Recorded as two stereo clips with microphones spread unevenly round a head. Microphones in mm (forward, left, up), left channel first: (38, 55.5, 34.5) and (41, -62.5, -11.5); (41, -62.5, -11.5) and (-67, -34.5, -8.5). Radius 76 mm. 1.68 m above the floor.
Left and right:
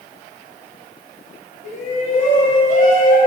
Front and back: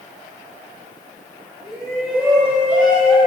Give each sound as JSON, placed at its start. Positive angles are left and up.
{"t": 1.6, "sound": "a shout", "azimuth_deg": 80, "distance_m": 6.5}